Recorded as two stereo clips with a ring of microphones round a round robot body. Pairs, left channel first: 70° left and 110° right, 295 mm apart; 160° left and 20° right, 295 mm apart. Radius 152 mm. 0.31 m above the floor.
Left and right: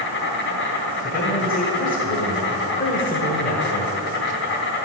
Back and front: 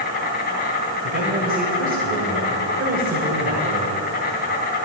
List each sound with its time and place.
0.0 s an insect: 105° left, 3 m
1.0 s a man speaking: 20° left, 1.8 m